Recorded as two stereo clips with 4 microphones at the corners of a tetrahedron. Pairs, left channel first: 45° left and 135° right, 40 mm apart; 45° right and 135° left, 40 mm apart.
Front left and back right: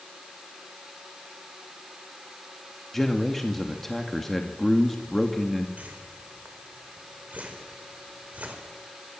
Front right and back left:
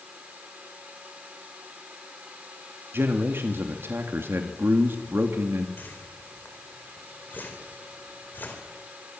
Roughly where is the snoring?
No snoring in this recording.